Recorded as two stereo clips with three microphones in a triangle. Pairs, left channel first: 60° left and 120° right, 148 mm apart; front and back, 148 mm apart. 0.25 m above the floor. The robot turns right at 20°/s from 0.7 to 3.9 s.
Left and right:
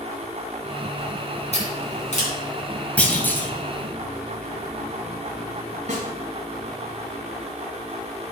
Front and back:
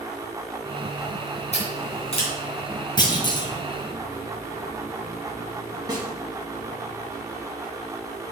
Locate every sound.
1.5 s scissors: 30° left, 3 m; by 2.3 s 45° left, 3 m
3.0 s a clunk: 10° right, 1.5 m; by 3.5 s straight ahead, 1.5 m
5.9 s a snare drum: 125° right, 1.7 m